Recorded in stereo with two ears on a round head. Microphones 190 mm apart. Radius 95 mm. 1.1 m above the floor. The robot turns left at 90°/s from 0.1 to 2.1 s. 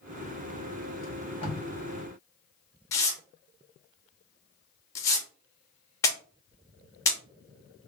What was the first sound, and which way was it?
Tape being pulled, 60° left (ahead or behind).